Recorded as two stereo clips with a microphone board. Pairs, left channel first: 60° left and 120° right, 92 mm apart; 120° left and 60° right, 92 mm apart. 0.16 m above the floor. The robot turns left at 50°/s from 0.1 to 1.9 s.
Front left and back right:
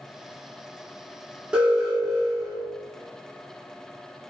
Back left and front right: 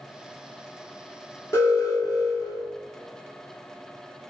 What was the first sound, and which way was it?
An alarm, 165° left.